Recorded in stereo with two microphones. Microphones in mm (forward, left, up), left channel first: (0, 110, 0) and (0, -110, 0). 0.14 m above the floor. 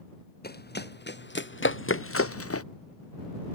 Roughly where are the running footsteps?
Left.